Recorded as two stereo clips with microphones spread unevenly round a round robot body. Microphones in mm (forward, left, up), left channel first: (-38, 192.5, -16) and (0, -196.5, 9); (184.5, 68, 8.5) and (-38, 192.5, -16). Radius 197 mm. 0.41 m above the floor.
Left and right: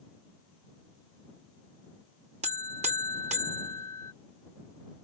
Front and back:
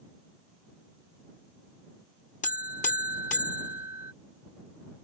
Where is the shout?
No shout in this recording.